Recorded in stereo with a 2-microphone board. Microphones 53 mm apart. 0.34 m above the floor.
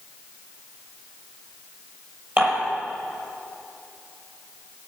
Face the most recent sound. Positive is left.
turn(degrees=-40)  # may be behind; listen again after turning